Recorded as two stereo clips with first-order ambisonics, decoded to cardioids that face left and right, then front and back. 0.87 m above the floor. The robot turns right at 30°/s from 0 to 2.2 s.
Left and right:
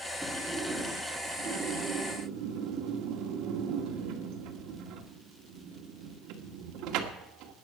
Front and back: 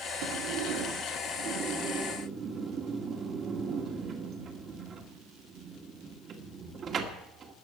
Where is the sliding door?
175° right, 2.0 m; by 7.5 s 115° right, 2.0 m.